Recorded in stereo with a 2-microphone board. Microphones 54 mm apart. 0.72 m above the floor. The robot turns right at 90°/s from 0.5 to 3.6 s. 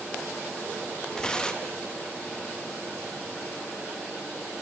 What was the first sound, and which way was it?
Tearing paper, 15° left (ahead or behind).